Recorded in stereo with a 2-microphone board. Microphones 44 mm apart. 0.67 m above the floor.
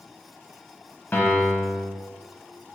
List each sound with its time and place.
1.1 s a piano: 50° left (ahead or behind), 1.2 m